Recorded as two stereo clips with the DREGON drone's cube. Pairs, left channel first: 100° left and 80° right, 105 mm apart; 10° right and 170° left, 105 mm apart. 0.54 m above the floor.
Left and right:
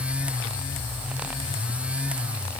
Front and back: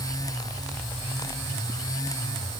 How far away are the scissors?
No scissors in this recording.